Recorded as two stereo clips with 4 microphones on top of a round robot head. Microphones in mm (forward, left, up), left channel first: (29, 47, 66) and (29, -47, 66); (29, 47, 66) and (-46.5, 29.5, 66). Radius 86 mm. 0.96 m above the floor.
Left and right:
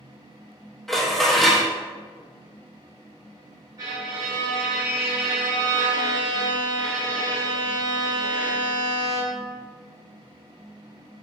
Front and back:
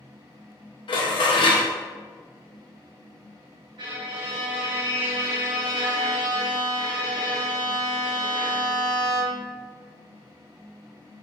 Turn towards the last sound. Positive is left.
turn(degrees=-140)